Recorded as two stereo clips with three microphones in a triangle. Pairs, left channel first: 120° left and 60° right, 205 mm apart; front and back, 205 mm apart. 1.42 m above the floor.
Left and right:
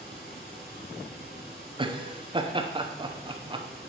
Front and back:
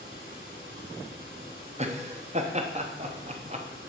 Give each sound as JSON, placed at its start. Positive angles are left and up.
{"t": 0.0, "sound": "running water", "azimuth_deg": 160, "distance_m": 4.0}
{"t": 1.8, "sound": "laughter", "azimuth_deg": -125, "distance_m": 0.8}